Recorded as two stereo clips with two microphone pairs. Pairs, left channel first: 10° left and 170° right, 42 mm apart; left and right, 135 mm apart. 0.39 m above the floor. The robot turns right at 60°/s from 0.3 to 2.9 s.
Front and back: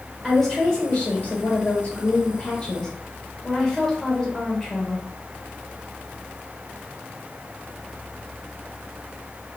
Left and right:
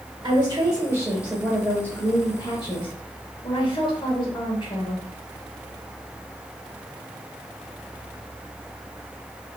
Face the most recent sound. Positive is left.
turn(degrees=80)